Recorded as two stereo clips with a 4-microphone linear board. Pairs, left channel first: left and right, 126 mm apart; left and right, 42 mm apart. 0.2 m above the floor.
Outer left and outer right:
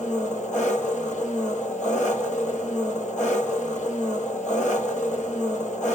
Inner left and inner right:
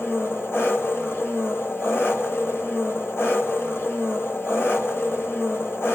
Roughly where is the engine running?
Left.